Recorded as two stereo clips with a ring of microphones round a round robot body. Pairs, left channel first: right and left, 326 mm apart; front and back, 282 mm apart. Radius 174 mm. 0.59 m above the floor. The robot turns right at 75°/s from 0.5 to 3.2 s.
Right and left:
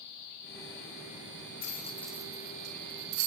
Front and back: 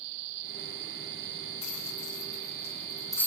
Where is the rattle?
35° right, 3.5 m; by 3.3 s 85° left, 3.5 m.